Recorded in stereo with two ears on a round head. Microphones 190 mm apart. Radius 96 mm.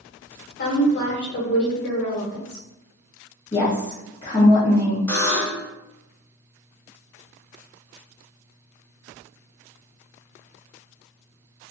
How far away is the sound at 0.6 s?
About 1.2 m.